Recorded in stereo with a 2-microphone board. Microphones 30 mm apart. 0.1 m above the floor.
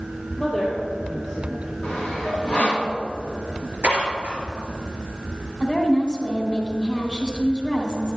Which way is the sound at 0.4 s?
20° left (ahead or behind).